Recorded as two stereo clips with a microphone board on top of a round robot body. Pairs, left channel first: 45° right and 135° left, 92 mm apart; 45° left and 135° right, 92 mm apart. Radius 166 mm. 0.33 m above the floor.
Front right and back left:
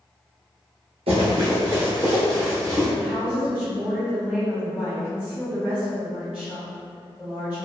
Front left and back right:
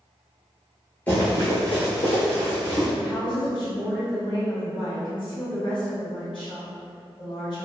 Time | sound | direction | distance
1.1 | running footsteps | 120° left | 0.5 m
3.0 | a woman speaking | 55° left | 1.9 m